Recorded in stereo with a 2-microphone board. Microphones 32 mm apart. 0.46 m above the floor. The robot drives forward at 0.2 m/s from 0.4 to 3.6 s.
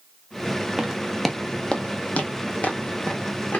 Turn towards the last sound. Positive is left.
turn(degrees=60)  # may be behind; listen again after turning